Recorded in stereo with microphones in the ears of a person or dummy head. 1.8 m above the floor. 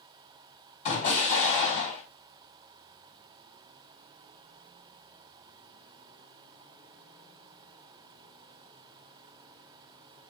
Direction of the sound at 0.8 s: 40° left (ahead or behind).